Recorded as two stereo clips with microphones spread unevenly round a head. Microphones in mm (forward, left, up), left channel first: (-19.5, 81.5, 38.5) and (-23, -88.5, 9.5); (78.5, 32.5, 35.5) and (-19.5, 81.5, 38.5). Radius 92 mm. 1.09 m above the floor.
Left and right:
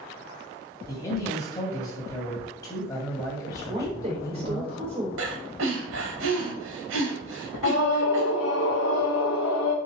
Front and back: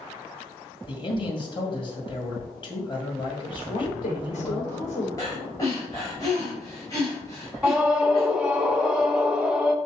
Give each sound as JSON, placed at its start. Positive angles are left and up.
{"t": 0.9, "sound": "a man speaking", "azimuth_deg": 15, "distance_m": 2.5}
{"t": 3.7, "sound": "a woman speaking", "azimuth_deg": -35, "distance_m": 3.5}
{"t": 5.2, "sound": "breathing", "azimuth_deg": -100, "distance_m": 2.5}
{"t": 7.6, "sound": "a scream", "azimuth_deg": 70, "distance_m": 0.8}